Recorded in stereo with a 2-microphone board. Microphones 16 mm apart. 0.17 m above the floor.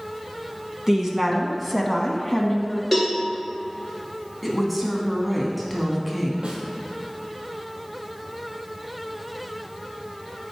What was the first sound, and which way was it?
A woman speaking, 35° right (ahead or behind).